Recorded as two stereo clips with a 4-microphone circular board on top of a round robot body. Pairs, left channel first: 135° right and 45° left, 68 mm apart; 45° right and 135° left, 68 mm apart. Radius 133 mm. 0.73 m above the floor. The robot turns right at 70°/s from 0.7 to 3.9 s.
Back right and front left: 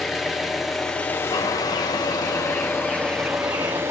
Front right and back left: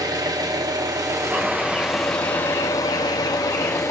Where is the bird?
160° right, 0.6 m; by 3.8 s 15° left, 0.6 m.